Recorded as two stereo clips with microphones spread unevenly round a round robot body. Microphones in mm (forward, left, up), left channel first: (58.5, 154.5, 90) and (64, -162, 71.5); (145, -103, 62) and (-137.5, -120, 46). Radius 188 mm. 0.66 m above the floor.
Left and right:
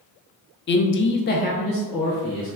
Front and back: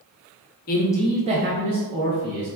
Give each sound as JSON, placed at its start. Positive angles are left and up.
{"t": 0.7, "sound": "a man speaking", "azimuth_deg": 45, "distance_m": 0.6}